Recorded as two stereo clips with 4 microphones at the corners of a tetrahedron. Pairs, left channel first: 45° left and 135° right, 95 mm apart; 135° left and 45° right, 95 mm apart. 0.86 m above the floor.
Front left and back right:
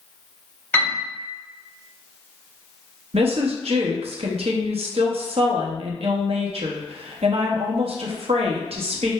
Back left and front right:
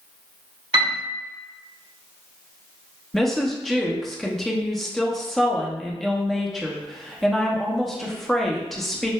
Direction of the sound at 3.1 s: 135° right.